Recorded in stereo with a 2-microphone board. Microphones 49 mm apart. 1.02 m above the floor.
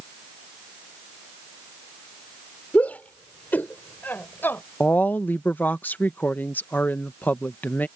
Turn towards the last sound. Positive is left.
turn(degrees=40)  # may be behind; listen again after turning